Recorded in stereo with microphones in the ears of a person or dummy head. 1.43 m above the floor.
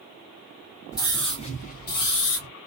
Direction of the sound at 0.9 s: 20° left (ahead or behind).